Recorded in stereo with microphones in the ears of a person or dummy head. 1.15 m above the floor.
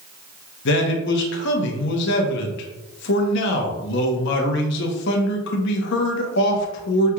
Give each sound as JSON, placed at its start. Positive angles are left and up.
{"t": 0.7, "sound": "a man speaking", "side_deg": 65, "distance_m": 0.9}